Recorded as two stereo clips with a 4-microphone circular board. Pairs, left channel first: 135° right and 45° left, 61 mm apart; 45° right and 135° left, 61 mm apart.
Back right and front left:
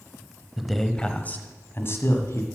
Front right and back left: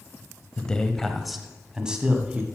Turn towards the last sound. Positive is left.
turn(degrees=-160)